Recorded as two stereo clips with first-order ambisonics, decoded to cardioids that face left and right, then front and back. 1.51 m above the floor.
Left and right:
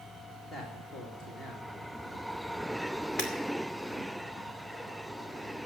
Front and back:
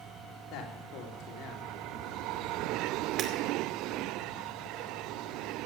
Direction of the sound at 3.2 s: 130° left.